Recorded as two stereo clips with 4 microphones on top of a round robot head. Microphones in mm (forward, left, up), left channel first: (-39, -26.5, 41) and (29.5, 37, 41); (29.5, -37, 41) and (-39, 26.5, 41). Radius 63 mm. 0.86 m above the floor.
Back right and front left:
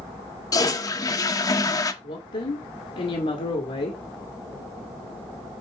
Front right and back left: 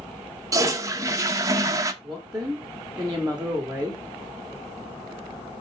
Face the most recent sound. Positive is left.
turn(degrees=-145)